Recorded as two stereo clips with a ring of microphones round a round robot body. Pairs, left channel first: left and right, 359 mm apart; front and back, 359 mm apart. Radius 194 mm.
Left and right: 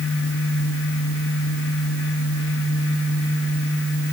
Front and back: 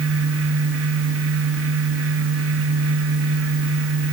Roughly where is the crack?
I don't hear a crack.